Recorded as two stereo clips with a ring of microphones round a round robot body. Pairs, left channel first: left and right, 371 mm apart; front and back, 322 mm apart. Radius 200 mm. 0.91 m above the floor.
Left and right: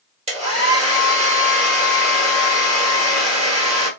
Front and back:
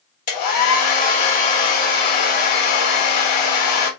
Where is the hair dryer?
15° right, 2.5 m.